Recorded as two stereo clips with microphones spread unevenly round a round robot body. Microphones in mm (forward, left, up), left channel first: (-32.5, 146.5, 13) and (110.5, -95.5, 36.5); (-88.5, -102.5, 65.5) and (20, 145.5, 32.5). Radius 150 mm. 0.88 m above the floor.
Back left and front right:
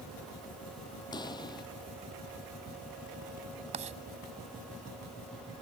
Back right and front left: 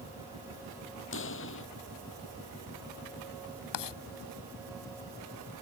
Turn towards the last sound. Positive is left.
turn(degrees=-130)